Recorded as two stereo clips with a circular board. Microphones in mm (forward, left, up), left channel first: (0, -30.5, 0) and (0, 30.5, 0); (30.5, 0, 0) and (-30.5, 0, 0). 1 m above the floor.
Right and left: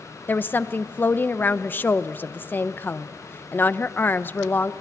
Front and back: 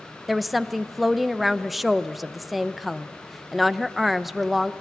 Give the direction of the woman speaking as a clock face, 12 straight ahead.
3 o'clock.